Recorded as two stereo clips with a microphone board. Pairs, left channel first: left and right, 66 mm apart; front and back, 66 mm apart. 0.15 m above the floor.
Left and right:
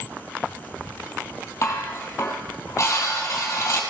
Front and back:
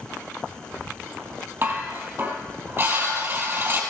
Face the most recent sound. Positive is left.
turn(degrees=130)